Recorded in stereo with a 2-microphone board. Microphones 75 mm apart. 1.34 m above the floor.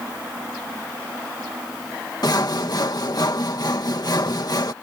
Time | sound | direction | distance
2.2 | sawing | 60° left (ahead or behind) | ?